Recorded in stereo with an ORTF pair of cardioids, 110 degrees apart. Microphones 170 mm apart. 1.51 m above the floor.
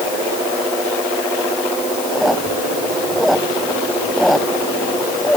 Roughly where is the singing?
No singing in this recording.